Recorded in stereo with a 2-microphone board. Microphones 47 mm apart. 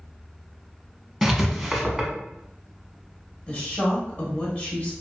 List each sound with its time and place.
1.2 s writing: 5° right (ahead or behind), 0.7 m
3.5 s a woman speaking: 35° left (ahead or behind), 1.2 m